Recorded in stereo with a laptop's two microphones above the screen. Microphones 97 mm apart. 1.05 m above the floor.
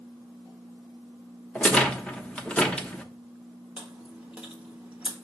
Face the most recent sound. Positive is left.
turn(degrees=-15)  # may be behind; listen again after turning